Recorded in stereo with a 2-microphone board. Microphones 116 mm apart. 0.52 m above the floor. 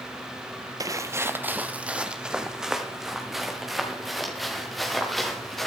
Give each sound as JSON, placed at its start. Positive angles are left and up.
{"t": 0.8, "sound": "footsteps", "side_deg": -30, "distance_m": 0.6}